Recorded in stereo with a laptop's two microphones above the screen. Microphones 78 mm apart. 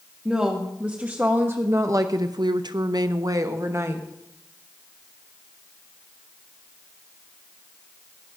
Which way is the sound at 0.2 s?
10° right (ahead or behind).